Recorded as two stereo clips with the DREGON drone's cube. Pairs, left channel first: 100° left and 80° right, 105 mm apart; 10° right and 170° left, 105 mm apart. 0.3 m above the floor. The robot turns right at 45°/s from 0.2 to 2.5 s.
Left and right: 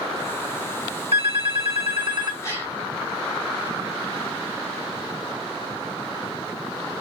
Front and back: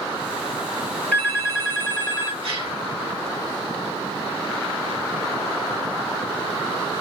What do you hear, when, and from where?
1.1 s a phone ringing: 85° right, 2 m; by 2.3 s 35° right, 2 m
2.4 s a gasp: 155° left, 2.5 m; by 2.8 s 160° left, 2.5 m